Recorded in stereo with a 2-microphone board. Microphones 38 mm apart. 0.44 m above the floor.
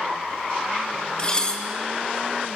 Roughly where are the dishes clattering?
Left.